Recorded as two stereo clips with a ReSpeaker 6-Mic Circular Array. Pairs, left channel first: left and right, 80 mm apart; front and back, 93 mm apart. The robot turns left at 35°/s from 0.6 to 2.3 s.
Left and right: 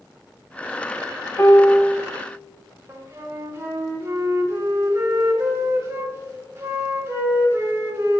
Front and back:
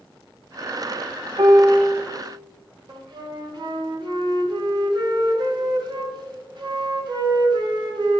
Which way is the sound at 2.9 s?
145° right.